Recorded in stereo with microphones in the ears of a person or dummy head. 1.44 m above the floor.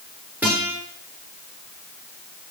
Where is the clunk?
No clunk in this recording.